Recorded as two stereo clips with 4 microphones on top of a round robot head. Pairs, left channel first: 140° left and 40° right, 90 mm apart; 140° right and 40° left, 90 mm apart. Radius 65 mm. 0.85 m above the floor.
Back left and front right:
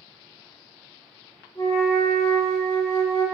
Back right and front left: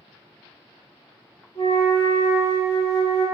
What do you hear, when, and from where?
1.6 s a flute: 175° right, 1.5 m